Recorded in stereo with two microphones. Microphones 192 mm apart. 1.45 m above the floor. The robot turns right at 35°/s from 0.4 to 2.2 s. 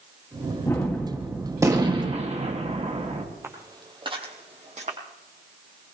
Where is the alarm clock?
No alarm clock in this recording.